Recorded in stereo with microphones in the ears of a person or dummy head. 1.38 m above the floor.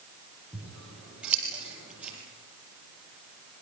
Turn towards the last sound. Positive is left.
turn(degrees=-10)  # may be behind; listen again after turning